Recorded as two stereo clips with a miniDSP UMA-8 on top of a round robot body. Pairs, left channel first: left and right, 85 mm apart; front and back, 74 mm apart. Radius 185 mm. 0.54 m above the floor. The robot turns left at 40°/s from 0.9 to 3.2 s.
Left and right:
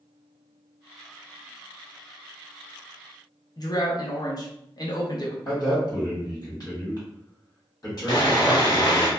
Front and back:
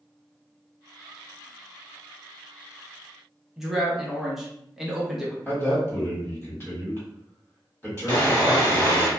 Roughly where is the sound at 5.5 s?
Ahead left.